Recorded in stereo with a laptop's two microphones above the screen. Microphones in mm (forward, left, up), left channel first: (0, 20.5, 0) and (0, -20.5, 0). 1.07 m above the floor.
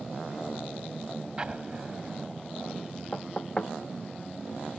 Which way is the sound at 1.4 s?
25° right (ahead or behind).